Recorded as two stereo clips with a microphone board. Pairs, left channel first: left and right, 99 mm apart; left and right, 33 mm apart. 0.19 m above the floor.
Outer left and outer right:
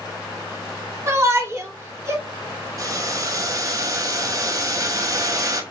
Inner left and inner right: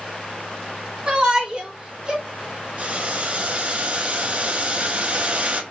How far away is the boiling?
About 0.8 m.